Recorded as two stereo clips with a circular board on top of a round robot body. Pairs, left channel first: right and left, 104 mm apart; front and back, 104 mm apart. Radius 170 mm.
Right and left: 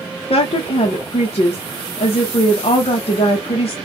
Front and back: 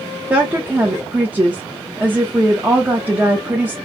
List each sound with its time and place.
0.3 s a woman speaking: 105° right, 0.8 m